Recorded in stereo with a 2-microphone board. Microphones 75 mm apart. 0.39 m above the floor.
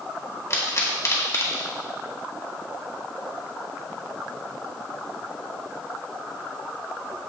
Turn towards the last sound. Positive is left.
turn(degrees=40)  # may be behind; listen again after turning